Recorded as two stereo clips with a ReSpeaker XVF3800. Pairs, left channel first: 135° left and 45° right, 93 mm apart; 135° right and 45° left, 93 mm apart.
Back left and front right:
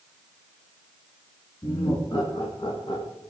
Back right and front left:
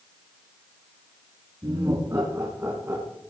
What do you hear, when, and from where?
1.6 s laughter: 95° left, 4.5 m; by 3.1 s 120° left, 3.5 m